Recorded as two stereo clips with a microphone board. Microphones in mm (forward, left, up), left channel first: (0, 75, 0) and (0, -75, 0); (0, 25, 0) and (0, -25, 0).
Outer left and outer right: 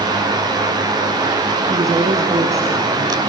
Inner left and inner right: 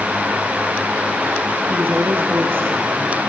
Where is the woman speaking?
45° right (ahead or behind), 3 m.